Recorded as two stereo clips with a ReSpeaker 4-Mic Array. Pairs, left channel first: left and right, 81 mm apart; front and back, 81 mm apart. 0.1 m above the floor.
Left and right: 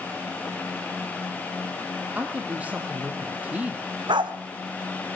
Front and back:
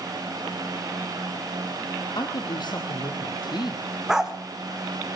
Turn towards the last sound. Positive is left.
turn(degrees=-95)